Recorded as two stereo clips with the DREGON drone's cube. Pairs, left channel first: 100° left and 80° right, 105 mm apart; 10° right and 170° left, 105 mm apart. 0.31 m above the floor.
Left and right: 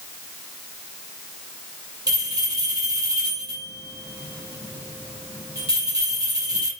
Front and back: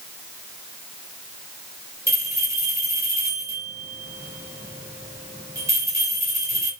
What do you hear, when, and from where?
2.1 s a bell: 130° right, 5.5 m